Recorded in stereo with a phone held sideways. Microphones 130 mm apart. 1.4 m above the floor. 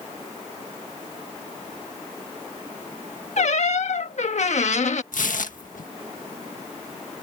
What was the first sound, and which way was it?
A squeak, 65° left (ahead or behind).